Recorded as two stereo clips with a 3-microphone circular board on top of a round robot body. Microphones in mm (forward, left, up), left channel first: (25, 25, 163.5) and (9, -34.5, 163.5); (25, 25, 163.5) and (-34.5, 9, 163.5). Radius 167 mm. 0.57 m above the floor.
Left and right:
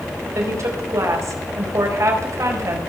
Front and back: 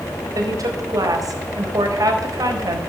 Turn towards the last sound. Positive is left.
turn(degrees=-140)